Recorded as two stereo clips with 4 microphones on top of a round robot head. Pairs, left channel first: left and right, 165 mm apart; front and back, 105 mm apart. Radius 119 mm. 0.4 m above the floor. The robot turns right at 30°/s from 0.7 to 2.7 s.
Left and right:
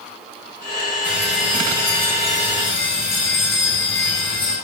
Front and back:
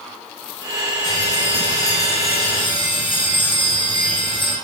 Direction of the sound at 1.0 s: 10° right.